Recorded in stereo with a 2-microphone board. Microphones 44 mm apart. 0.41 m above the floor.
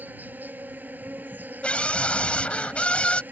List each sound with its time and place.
0.0 s an insect: 45° right (ahead or behind)
1.6 s a scream: 30° left (ahead or behind)